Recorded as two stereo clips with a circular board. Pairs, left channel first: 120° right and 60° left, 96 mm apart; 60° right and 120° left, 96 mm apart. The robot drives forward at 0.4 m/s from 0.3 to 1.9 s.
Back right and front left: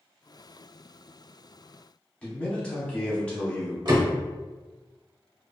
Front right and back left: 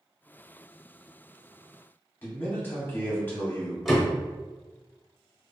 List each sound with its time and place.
2.2 s a man speaking: 60° right, 0.7 m
3.9 s a door slam: 30° left, 0.8 m